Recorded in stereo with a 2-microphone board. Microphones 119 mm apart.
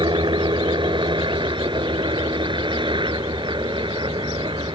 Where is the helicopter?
40° right (ahead or behind).